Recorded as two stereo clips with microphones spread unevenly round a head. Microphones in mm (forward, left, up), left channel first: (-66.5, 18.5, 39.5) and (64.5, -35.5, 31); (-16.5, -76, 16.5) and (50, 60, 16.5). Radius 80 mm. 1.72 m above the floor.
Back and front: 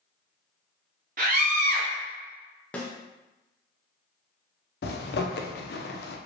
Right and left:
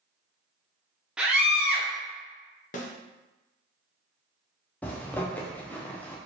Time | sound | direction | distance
1.2 | a scream | 20° right | 0.6 m
2.7 | a snare drum | 125° right | 0.6 m
4.8 | a zipper | 165° left | 0.5 m